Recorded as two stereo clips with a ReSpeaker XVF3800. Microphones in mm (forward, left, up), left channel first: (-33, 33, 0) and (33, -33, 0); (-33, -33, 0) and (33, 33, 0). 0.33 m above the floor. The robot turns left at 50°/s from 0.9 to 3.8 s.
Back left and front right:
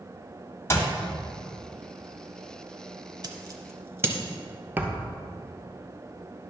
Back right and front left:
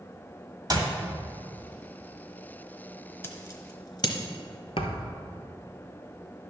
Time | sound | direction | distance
0.7 | a clap | 80° left | 1.6 m
3.2 | scissors | 75° right | 1.0 m
4.8 | a thud | 115° right | 0.9 m